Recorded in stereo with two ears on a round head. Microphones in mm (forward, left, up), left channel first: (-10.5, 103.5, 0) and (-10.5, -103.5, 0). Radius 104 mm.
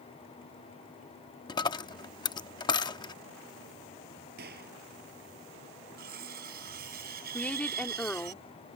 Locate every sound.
1.5 s a dropped coin: 20° left (ahead or behind)
4.4 s a gunshot: 45° right (ahead or behind)
6.0 s cutlery clinking: 40° right (ahead or behind)
7.3 s a woman speaking: 5° left (ahead or behind)